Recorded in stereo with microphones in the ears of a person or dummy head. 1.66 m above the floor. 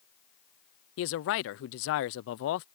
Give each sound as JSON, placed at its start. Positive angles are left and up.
{"t": 1.0, "sound": "a man speaking", "side_deg": 70}